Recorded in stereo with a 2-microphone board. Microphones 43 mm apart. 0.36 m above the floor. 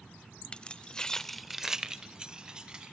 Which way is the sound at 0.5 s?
25° left (ahead or behind).